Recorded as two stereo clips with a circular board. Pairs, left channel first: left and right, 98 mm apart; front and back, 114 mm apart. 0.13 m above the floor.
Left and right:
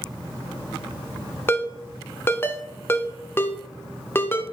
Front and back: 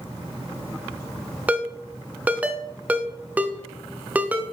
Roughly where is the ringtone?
Behind left.